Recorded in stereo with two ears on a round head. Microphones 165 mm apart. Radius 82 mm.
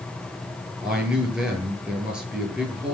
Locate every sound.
0.8 s a man speaking: 5° right (ahead or behind), 9.5 m